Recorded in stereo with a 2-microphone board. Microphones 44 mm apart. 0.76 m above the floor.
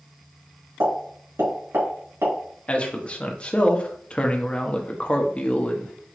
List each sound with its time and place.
0.8 s a pop: 85° right, 2.5 m
2.7 s a man speaking: 25° left (ahead or behind), 0.9 m